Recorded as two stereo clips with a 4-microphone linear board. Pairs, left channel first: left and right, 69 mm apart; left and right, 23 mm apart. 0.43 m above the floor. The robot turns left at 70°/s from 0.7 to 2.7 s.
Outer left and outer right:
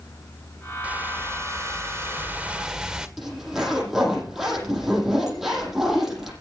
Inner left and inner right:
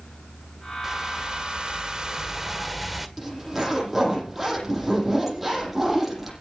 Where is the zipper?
5° right (ahead or behind), 9 m.